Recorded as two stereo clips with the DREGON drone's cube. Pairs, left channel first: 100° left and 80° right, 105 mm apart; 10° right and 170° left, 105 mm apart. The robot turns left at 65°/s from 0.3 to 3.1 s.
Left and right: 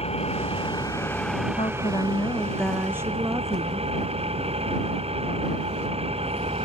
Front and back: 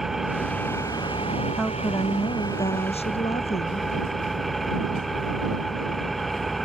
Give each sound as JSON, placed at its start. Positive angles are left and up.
{"t": 0.0, "sound": "an engine running", "azimuth_deg": 80}
{"t": 1.6, "sound": "a woman speaking", "azimuth_deg": 80}